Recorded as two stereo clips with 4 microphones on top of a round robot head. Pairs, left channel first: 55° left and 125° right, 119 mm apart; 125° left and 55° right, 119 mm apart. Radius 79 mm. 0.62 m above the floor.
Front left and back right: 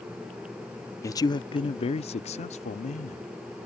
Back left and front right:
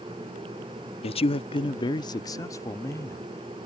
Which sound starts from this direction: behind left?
A man speaking, at 1.0 s.